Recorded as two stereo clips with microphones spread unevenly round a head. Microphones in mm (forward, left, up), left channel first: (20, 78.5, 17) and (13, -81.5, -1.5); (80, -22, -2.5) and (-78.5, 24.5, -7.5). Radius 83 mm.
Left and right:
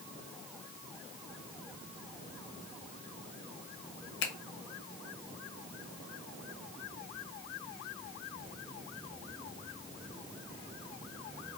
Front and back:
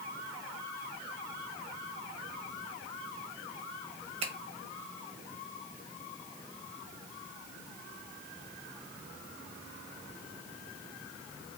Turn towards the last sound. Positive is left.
turn(degrees=110)